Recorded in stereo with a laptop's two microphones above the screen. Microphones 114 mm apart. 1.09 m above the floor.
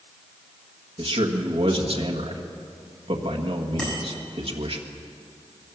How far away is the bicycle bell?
About 6.5 m.